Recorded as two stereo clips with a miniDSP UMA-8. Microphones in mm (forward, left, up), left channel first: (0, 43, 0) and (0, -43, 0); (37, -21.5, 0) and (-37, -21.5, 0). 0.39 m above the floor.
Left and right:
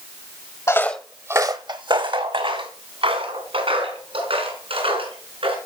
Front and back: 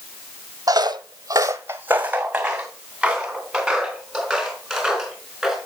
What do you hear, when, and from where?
0.7 s footsteps: 145° left, 0.9 m; by 5.5 s 90° right, 6 m